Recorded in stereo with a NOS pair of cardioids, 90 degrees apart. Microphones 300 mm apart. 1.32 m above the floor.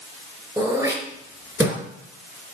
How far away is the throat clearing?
About 4 m.